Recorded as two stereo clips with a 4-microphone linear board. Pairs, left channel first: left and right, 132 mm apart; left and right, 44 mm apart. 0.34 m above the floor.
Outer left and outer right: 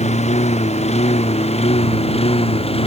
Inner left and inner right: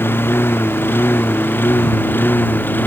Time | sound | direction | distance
0.0 | a lawn mower | 60° left (ahead or behind) | ?